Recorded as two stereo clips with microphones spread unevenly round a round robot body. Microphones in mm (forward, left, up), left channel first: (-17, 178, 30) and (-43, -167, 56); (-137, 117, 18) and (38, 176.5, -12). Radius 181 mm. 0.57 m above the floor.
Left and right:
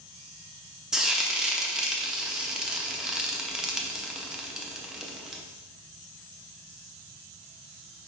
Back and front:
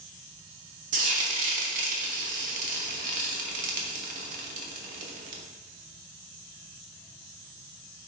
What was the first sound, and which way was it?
Frying, 5° right.